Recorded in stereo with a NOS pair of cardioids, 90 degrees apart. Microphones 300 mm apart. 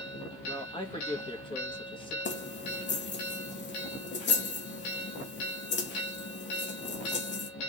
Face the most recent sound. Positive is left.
turn(degrees=35)